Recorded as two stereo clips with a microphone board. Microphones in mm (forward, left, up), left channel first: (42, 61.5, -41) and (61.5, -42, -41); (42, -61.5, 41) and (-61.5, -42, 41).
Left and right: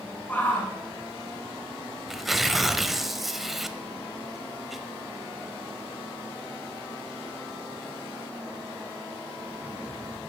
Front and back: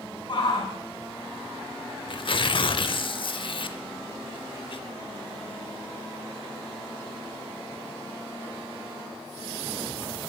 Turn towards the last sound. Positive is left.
turn(degrees=10)